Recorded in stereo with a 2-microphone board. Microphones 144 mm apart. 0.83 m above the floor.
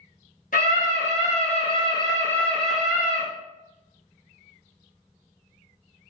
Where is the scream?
65° left (ahead or behind), 1.2 m; by 3.2 s 20° right (ahead or behind), 0.8 m.